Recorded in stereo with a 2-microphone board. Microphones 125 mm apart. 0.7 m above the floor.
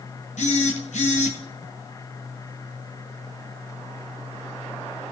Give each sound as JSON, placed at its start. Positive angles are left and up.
{"t": 0.4, "sound": "a phone buzzing", "side_deg": 85, "distance_m": 2.0}